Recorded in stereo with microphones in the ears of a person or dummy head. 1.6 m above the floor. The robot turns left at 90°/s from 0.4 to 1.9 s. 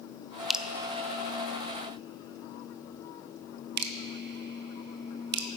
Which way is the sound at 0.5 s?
10° left (ahead or behind).